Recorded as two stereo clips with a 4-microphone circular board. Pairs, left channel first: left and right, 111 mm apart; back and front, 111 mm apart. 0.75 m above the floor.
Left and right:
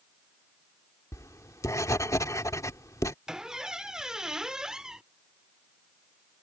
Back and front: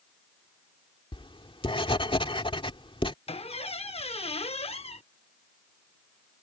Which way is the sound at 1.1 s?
150° left.